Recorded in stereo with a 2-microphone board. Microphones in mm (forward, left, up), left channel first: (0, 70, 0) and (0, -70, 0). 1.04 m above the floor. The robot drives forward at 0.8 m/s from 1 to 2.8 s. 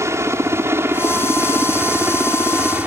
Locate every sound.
0.0 s a helicopter: 20° right (ahead or behind); by 2.9 s 10° right (ahead or behind)